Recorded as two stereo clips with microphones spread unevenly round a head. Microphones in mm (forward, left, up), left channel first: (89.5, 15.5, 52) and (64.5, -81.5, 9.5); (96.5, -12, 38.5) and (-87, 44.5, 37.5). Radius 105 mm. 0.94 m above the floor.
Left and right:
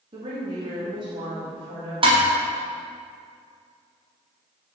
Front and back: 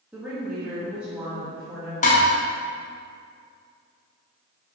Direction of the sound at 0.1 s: 115° right.